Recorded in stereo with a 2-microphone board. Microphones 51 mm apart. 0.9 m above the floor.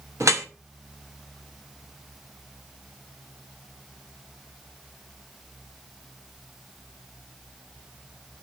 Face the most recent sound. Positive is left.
turn(degrees=-65)  # may be behind; listen again after turning